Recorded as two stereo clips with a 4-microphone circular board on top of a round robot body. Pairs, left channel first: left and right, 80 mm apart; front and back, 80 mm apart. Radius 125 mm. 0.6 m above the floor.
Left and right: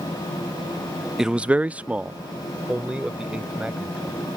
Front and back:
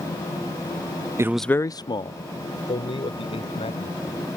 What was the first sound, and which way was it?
A man speaking, 170° right.